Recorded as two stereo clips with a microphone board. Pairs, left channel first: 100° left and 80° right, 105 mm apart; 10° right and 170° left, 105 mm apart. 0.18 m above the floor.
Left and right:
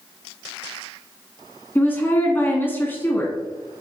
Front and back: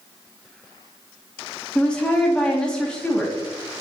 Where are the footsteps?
I don't hear footsteps.